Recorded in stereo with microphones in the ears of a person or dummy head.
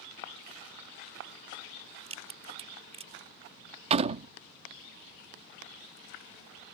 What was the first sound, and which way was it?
A crack, 35° right (ahead or behind).